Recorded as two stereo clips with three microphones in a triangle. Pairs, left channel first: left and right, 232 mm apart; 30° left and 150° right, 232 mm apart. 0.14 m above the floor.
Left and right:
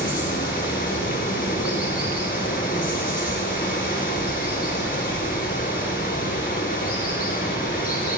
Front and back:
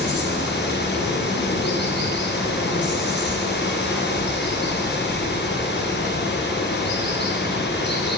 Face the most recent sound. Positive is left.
turn(degrees=50)